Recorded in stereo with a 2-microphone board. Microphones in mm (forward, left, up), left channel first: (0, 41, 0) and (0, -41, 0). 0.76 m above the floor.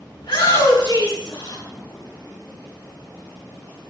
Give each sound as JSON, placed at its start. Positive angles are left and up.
{"t": 0.2, "sound": "a shout", "side_deg": 85, "distance_m": 7.0}